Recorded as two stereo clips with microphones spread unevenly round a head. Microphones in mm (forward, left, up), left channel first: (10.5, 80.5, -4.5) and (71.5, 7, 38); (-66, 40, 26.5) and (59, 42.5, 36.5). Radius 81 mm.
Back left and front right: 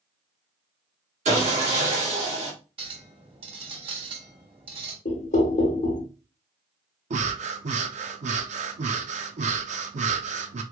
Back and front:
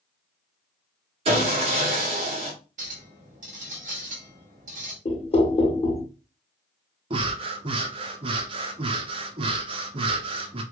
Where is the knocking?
135° left, 0.9 m.